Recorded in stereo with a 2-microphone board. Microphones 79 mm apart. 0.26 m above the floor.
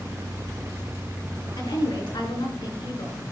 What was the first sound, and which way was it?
A woman speaking, 70° left (ahead or behind).